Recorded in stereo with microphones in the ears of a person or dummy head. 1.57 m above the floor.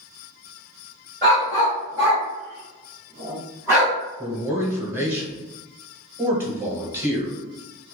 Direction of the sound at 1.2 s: 15° right (ahead or behind).